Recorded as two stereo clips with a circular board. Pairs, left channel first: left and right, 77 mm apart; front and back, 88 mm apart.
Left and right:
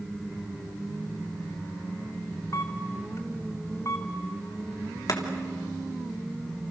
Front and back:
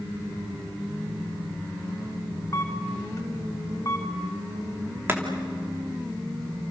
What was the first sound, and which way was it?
A camera shutter, 45° left.